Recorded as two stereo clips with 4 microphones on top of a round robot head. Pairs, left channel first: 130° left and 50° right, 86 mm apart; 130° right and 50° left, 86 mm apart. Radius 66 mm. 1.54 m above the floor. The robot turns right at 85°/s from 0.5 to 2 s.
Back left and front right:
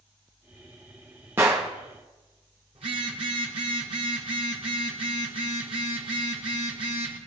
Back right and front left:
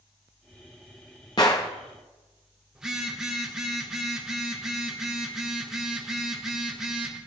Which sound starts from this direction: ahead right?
A phone buzzing, at 2.8 s.